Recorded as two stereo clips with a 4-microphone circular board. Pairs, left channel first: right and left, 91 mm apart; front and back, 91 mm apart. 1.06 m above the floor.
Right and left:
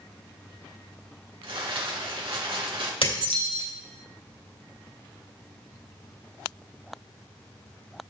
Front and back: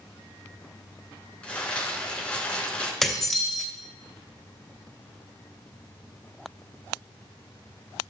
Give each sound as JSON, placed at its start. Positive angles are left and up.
{"t": 1.4, "sound": "crumpling", "azimuth_deg": 80, "distance_m": 4.5}
{"t": 3.0, "sound": "dishes clattering", "azimuth_deg": -90, "distance_m": 3.0}